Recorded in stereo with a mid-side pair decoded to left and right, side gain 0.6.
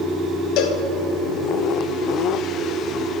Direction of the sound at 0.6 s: 70° left.